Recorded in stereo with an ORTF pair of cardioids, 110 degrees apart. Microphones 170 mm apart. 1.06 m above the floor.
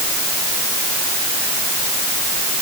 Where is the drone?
No drone in this recording.